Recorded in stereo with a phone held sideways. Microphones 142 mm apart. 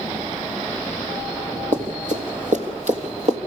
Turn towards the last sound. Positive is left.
turn(degrees=-55)  # may be behind; listen again after turning